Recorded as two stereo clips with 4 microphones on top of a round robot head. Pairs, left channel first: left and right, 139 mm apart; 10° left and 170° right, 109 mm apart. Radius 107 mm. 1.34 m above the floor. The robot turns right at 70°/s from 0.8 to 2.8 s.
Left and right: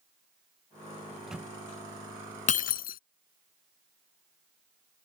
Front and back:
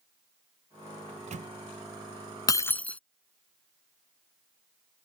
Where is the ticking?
I don't hear ticking.